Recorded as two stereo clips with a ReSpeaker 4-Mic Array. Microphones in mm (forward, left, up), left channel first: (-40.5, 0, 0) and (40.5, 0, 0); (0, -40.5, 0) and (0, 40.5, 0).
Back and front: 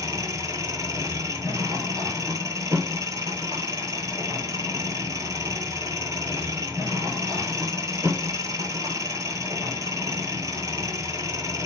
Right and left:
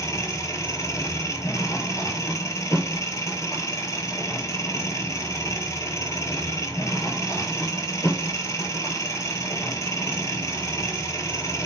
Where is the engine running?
45° right, 1.0 m.